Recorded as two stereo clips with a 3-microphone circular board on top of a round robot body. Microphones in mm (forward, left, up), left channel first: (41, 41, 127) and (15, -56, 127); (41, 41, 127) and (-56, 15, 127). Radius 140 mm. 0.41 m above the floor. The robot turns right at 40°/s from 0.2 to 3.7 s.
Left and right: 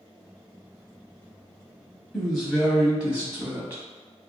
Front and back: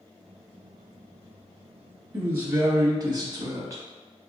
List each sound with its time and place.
2.1 s a woman speaking: 155° left, 1.0 m; by 3.8 s 145° right, 1.0 m